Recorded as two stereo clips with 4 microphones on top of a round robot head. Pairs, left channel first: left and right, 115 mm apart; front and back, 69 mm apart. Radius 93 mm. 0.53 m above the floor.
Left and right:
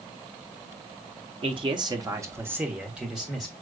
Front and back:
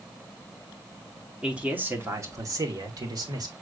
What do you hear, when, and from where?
1.4 s a man speaking: 105° right, 1.0 m; by 3.5 s straight behind, 1.8 m